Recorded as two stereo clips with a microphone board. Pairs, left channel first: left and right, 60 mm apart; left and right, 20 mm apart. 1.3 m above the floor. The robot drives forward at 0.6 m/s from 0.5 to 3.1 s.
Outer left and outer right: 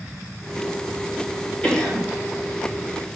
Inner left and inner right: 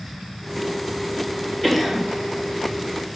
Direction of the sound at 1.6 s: 25° left (ahead or behind).